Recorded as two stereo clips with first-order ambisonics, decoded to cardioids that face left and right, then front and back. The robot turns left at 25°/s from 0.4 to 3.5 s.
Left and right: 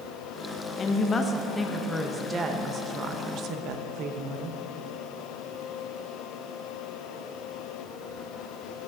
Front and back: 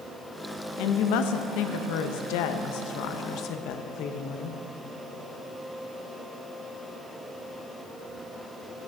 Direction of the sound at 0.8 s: 25° left.